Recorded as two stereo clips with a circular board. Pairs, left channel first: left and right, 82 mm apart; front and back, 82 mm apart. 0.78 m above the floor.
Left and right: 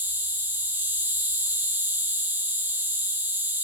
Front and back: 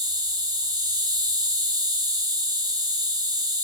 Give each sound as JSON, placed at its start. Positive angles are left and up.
{"t": 0.0, "sound": "an insect", "azimuth_deg": -155, "distance_m": 0.9}